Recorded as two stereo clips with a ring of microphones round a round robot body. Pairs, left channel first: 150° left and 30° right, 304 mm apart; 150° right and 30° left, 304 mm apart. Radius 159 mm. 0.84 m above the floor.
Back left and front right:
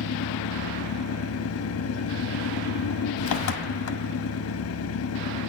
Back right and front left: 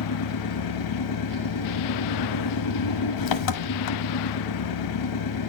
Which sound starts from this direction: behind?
An engine running, at 0.0 s.